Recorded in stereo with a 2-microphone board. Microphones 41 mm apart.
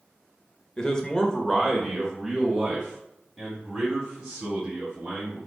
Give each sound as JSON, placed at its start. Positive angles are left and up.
{"t": 0.8, "sound": "a man speaking", "side_deg": 20, "distance_m": 0.9}